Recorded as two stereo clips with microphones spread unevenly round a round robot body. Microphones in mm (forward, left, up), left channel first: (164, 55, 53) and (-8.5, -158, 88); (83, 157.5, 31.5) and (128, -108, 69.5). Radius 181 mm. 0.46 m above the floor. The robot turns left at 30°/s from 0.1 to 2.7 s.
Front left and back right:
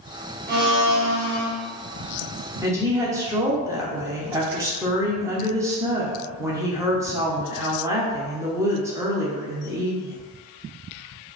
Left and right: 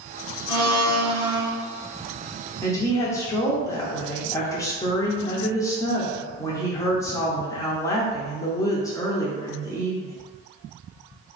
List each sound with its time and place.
0.5 s a blender: 80° right, 1.8 m; by 1.5 s 110° right, 1.8 m
2.6 s a woman speaking: 150° left, 0.7 m